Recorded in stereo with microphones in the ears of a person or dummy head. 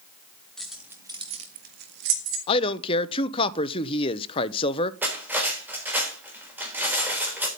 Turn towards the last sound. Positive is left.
turn(degrees=-10)  # may be behind; listen again after turning